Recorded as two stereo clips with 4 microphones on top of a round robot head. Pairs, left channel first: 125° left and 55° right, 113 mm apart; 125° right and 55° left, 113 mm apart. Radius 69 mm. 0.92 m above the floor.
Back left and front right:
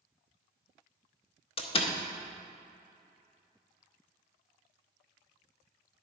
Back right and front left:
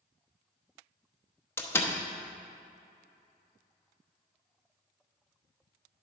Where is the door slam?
165° left, 0.9 m.